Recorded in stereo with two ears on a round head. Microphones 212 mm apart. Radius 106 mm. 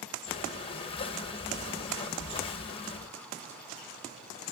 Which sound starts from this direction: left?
Breathing, at 0.3 s.